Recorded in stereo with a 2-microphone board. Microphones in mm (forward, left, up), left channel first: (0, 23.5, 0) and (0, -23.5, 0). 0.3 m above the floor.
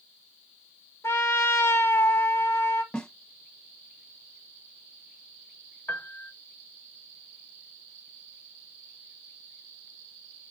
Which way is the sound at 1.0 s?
60° left (ahead or behind).